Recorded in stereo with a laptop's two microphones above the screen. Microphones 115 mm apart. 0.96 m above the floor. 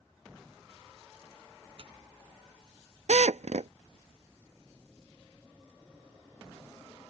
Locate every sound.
1.8 s tearing paper: 50° right (ahead or behind)
3.1 s a drill: 75° right (ahead or behind)